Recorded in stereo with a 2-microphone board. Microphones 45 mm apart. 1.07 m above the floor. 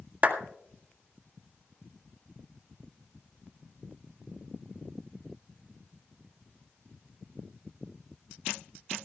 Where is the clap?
35° right (ahead or behind), 1.9 m.